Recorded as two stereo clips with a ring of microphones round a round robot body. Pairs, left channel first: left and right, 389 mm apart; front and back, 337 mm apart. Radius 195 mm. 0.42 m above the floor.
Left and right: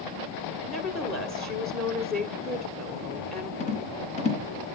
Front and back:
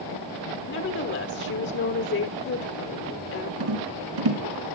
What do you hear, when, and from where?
0.7 s a woman speaking: straight ahead, 1.3 m
3.6 s a rattle: 165° left, 2.5 m